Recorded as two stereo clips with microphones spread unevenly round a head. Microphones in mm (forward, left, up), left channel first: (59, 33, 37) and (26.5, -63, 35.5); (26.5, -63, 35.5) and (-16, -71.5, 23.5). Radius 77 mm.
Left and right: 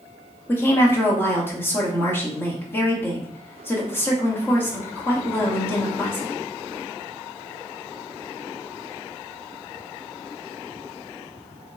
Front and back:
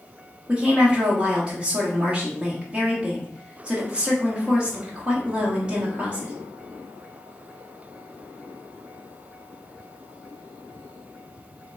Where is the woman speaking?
140° left, 1.0 m.